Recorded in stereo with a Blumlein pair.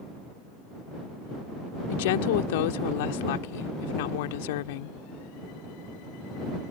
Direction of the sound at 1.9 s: 50° left.